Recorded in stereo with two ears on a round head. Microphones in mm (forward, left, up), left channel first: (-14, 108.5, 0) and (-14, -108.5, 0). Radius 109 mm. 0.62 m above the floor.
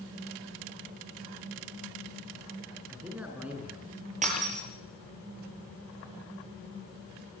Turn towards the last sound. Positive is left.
turn(degrees=-35)  # may be behind; listen again after turning